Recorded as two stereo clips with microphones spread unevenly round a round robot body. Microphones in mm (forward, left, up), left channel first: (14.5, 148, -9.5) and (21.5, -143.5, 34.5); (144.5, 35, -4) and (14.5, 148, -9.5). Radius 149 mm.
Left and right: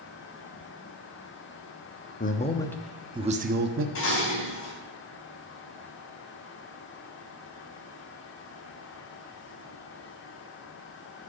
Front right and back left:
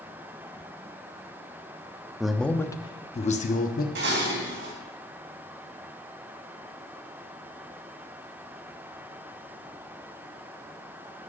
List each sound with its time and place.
2.2 s a man speaking: 55° left, 1.0 m; by 3.9 s 45° right, 1.0 m
4.0 s dishes clattering: 140° left, 3.5 m